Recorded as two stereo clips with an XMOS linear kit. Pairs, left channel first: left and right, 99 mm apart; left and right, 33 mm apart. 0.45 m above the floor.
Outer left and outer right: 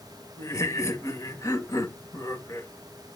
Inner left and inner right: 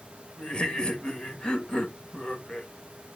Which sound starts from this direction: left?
Laughter, at 0.4 s.